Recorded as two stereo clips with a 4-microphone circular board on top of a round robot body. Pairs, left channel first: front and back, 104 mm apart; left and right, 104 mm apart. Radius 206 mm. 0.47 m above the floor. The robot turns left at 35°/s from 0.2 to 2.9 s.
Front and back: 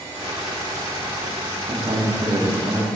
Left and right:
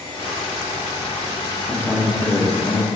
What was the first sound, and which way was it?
A man speaking, 165° left.